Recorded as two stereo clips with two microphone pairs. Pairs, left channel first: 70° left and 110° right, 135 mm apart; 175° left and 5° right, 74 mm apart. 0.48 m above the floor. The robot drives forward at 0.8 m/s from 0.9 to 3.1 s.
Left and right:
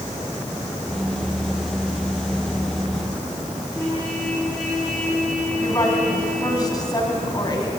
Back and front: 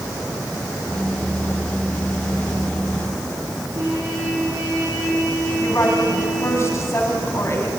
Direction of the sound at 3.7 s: 25° right.